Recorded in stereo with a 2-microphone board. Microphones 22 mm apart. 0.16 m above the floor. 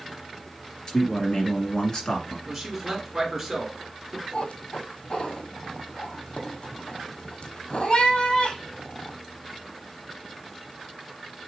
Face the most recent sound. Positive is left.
turn(degrees=65)  # may be behind; listen again after turning